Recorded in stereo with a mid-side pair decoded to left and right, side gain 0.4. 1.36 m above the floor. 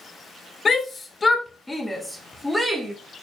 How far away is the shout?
About 2.5 m.